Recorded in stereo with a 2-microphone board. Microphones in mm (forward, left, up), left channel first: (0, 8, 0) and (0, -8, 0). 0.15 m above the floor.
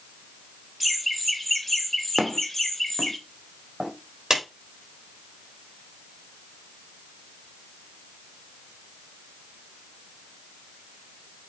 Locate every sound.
0.8 s laughter: 5° left (ahead or behind), 1.3 m; by 3.2 s 35° left (ahead or behind), 2 m
2.2 s footsteps: 40° right (ahead or behind), 2 m; by 3.9 s 45° right (ahead or behind), 3.5 m
4.3 s a clap: 35° right (ahead or behind), 5.5 m